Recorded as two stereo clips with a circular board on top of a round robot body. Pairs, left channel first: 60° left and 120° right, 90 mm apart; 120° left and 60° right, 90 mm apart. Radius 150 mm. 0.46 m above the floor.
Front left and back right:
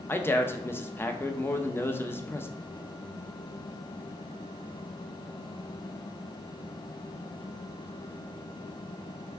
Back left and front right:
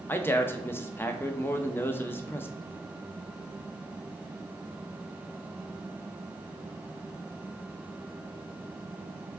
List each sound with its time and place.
0.1 s a man speaking: 90° left, 0.7 m